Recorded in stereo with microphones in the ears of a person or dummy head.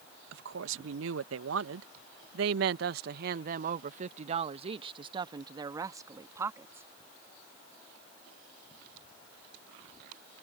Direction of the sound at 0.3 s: 70° right (ahead or behind).